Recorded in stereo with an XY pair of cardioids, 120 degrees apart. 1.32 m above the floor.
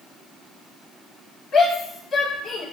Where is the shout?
55° left, 1.6 m.